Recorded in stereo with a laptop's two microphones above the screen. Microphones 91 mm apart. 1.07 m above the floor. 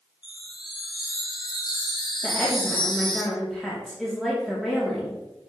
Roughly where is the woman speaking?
Centre.